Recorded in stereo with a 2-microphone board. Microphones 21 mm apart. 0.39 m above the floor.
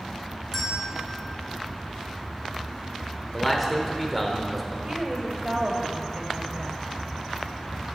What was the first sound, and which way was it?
A bell, 10° left (ahead or behind).